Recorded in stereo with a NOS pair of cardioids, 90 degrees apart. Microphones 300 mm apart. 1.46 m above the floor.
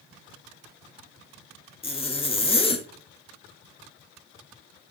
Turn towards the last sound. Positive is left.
turn(degrees=20)